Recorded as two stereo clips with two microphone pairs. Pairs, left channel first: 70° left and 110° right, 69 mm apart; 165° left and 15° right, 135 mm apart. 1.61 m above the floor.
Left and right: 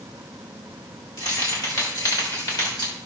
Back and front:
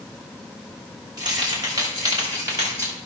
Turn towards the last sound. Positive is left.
turn(degrees=45)